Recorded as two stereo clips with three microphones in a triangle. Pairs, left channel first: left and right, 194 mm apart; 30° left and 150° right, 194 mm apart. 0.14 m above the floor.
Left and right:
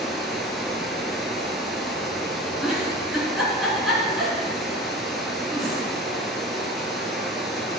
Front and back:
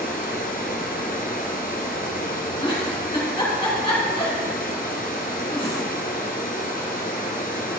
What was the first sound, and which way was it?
Running water, straight ahead.